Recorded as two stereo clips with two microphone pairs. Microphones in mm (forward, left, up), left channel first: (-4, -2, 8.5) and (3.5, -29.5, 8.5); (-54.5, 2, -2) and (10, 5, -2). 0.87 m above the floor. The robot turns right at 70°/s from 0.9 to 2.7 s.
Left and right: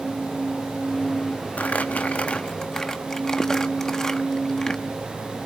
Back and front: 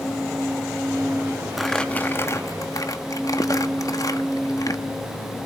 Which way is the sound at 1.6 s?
95° left.